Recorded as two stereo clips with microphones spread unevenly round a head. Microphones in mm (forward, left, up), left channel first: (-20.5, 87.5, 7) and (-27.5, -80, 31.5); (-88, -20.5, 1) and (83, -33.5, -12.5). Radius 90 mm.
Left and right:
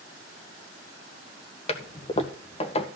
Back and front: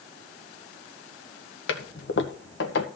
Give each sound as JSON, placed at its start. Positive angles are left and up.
{"t": 1.7, "sound": "a toilet flushing", "azimuth_deg": 140, "distance_m": 1.8}